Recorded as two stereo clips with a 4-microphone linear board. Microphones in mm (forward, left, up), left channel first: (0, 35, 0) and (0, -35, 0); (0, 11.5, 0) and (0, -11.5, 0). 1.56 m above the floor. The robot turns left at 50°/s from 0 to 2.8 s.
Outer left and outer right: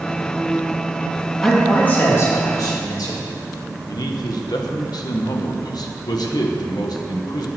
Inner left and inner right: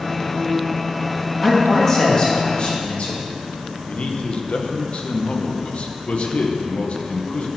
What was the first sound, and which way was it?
A man speaking, straight behind.